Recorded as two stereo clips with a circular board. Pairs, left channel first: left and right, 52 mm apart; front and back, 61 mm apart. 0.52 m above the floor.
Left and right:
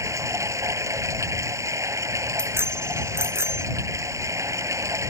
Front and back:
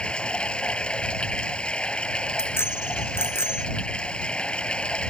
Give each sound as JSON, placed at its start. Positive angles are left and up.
{"t": 0.0, "sound": "running water", "azimuth_deg": -75}
{"t": 2.4, "sound": "a bicycle bell", "azimuth_deg": -50}